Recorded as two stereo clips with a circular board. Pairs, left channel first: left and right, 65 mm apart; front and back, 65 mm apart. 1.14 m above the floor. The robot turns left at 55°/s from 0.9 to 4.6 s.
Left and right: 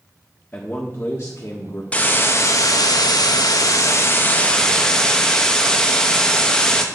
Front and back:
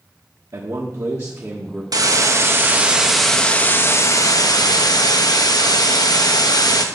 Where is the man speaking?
155° left, 1.3 m; by 1.8 s 105° left, 1.3 m.